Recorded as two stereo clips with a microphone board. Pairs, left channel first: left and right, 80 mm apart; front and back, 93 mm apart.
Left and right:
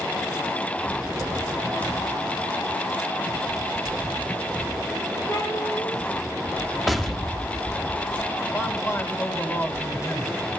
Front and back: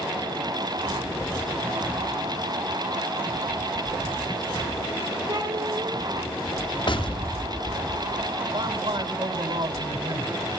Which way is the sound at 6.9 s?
Straight ahead.